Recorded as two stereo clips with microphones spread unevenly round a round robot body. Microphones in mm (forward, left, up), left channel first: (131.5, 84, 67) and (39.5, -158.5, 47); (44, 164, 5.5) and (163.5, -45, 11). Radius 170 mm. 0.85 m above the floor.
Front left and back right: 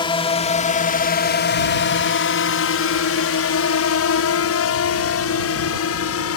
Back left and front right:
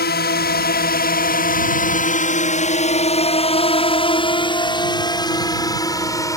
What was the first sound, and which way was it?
A drone, 140° left.